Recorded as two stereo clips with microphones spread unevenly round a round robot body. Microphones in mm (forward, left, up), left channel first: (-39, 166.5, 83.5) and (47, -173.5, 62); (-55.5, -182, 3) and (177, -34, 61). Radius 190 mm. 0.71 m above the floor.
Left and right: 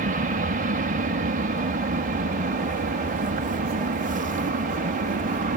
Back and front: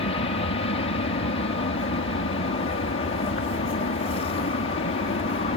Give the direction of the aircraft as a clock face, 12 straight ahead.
4 o'clock.